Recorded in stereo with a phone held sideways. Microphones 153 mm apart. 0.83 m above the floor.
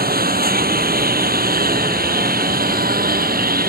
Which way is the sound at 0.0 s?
75° right (ahead or behind).